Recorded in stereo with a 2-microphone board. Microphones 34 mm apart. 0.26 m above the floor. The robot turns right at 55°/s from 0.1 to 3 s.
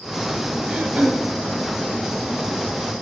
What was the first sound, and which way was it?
Throat clearing, 150° right.